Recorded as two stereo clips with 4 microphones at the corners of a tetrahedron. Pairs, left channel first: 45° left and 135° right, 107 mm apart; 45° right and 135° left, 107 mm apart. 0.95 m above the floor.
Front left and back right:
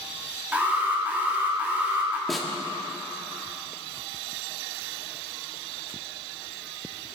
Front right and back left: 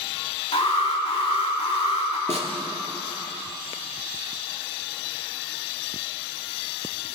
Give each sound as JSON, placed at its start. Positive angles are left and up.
{"t": 0.5, "sound": "an alarm", "azimuth_deg": -60, "distance_m": 2.5}
{"t": 2.3, "sound": "a snare drum", "azimuth_deg": 135, "distance_m": 1.8}